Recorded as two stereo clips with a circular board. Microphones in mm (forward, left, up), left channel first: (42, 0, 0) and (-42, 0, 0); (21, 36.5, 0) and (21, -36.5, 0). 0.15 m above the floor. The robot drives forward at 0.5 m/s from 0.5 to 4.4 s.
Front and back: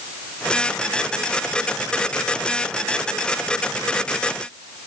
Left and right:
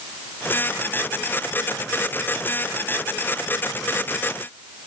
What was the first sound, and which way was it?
Only background noise.